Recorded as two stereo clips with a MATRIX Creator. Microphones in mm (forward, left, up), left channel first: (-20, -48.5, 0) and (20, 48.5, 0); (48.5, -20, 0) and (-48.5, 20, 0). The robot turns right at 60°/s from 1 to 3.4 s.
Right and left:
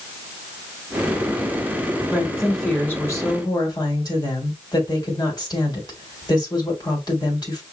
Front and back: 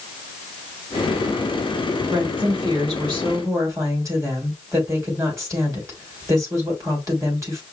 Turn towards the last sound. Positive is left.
turn(degrees=-150)